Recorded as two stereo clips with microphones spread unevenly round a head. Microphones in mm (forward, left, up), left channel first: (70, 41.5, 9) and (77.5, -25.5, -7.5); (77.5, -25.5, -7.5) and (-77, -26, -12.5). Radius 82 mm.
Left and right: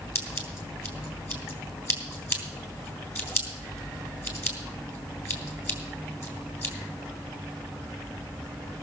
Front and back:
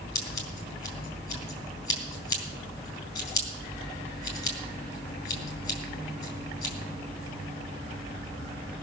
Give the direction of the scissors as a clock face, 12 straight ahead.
10 o'clock.